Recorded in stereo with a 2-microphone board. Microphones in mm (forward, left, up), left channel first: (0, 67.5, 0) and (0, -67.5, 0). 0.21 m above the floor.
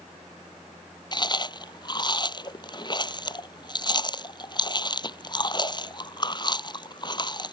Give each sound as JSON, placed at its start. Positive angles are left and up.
{"t": 1.1, "sound": "chewing", "side_deg": 35}